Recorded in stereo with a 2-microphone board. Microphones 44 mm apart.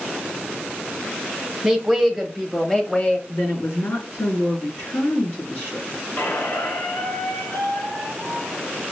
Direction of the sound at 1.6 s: 10° right (ahead or behind).